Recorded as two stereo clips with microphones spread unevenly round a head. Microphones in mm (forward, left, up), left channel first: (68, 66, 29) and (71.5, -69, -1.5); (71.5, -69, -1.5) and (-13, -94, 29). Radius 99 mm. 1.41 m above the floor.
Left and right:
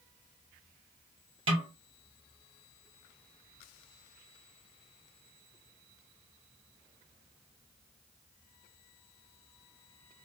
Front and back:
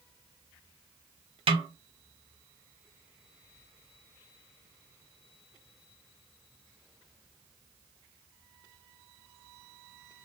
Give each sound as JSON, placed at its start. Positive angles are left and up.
{"t": 1.5, "sound": "a snare drum", "azimuth_deg": -140, "distance_m": 0.7}